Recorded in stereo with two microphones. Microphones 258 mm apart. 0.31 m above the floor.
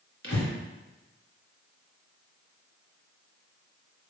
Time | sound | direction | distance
0.2 | breathing | 55° left (ahead or behind) | 1.3 m